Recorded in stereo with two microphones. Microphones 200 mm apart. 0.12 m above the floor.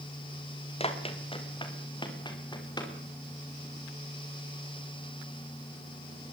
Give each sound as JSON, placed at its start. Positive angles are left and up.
{"t": 0.8, "sound": "running footsteps", "side_deg": 30, "distance_m": 4.0}